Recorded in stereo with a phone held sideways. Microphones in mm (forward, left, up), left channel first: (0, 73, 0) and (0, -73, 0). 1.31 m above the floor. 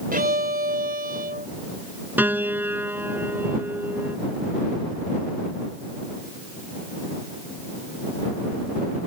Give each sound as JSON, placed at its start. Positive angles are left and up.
{"t": 0.1, "sound": "a violin", "side_deg": -85}
{"t": 2.2, "sound": "a piano", "side_deg": -15}